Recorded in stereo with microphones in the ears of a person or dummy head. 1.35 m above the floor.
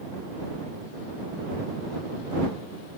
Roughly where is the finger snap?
No finger snap in this recording.